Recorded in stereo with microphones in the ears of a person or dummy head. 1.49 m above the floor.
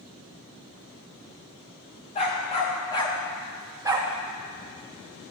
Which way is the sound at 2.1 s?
35° left (ahead or behind).